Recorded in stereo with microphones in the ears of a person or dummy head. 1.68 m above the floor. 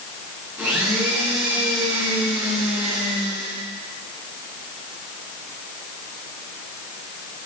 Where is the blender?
10° right (ahead or behind), 3.5 m.